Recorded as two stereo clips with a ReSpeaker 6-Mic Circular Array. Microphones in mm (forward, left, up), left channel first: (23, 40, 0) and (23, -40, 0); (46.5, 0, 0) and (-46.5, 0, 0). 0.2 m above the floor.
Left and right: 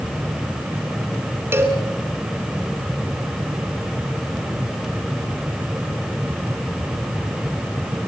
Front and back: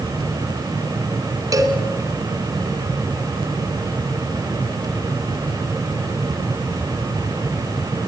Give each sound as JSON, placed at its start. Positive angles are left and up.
{"t": 1.5, "sound": "a cowbell", "azimuth_deg": -145, "distance_m": 2.5}